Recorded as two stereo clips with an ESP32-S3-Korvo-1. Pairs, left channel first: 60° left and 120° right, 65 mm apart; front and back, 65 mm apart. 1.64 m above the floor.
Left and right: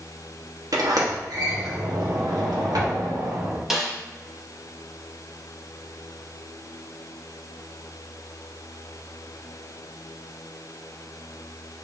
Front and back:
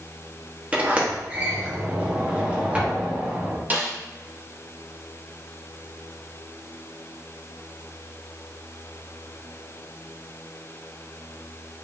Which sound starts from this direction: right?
A sliding door, at 0.7 s.